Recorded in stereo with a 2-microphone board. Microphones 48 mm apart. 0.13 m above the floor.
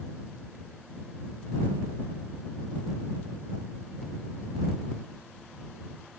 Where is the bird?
No bird in this recording.